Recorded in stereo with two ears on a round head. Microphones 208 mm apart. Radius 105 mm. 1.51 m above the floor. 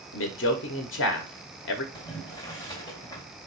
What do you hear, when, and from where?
0.1 s a man speaking: 55° left (ahead or behind), 0.8 m
1.9 s boiling: 15° left (ahead or behind), 2.5 m